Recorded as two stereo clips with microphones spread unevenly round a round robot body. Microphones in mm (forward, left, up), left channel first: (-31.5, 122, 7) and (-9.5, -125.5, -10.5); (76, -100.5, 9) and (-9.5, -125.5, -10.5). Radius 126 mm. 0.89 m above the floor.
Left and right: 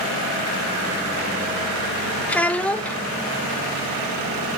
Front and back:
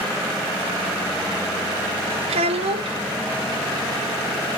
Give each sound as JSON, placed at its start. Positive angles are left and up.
{"t": 2.3, "sound": "a child speaking", "azimuth_deg": 180, "distance_m": 0.5}